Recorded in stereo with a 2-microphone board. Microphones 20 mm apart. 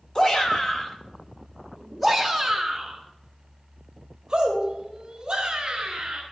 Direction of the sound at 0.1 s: 40° left (ahead or behind).